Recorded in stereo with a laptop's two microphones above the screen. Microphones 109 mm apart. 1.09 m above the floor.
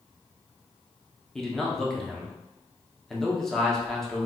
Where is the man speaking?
5° left (ahead or behind), 0.6 m.